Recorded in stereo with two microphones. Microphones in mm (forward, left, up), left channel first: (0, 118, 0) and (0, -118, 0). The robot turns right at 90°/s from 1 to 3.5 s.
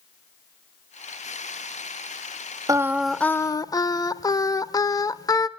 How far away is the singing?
About 0.7 m.